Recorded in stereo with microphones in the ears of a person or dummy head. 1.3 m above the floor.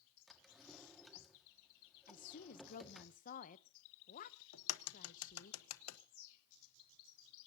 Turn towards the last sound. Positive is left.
turn(degrees=80)